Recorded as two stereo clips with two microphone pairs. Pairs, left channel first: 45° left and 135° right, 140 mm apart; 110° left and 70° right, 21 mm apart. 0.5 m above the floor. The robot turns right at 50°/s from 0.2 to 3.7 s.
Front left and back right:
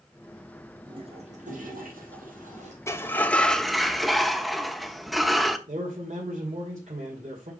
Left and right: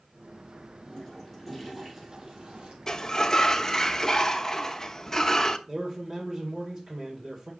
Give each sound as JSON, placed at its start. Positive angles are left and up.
{"t": 0.9, "sound": "a toilet flushing", "azimuth_deg": 165, "distance_m": 3.0}
{"t": 2.9, "sound": "a sliding door", "azimuth_deg": 95, "distance_m": 0.8}
{"t": 5.7, "sound": "a man speaking", "azimuth_deg": -125, "distance_m": 2.5}